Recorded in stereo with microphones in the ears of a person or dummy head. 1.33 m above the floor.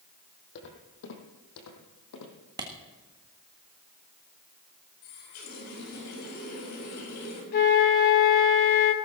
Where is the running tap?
85° left, 5.5 m.